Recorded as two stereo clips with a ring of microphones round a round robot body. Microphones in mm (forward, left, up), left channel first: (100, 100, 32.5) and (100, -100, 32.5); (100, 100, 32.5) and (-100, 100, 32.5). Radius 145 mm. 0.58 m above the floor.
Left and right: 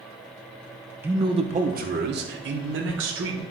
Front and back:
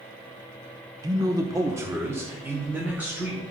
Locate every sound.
1.0 s a man speaking: 155° right, 0.7 m; by 3.4 s 95° right, 1.9 m